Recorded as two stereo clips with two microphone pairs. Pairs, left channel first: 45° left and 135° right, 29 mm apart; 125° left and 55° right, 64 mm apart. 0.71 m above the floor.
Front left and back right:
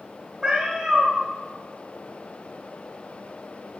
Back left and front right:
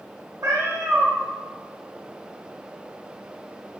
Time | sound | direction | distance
0.4 | a cat meowing | 60° right | 0.7 m